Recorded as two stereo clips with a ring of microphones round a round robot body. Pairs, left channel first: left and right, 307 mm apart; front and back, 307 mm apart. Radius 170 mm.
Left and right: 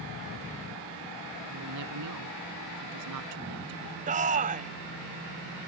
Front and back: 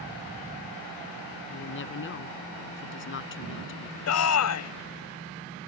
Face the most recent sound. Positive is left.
turn(degrees=-25)